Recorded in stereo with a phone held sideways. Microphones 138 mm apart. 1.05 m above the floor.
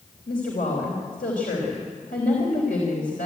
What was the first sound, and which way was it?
A woman speaking, 90° left.